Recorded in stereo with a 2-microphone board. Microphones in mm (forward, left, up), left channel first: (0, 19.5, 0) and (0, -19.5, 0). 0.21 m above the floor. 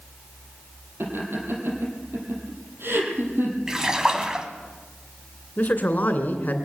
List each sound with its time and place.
1.0 s laughter: 80° right, 5.5 m
3.7 s a splash: 15° right (ahead or behind), 1.6 m
5.6 s a man speaking: 45° left (ahead or behind), 2.5 m